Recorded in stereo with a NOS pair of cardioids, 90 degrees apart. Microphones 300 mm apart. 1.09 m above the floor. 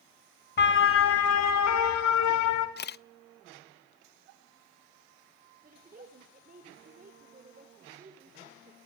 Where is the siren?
35° left, 2.5 m; by 2.7 s 80° left, 4.5 m.